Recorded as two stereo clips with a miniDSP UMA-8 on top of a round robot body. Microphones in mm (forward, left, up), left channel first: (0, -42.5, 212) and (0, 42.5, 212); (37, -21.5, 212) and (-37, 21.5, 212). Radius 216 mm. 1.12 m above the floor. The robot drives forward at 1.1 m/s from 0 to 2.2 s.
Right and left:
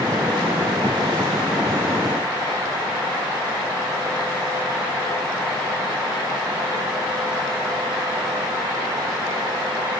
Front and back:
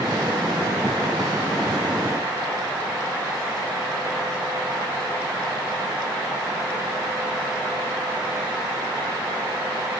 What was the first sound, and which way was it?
Only background noise.